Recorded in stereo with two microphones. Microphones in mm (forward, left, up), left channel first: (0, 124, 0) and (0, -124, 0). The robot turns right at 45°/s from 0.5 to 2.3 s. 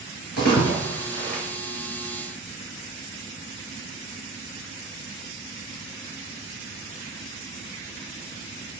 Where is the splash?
75° left (ahead or behind), 6 m; by 1.4 s 45° left (ahead or behind), 6 m.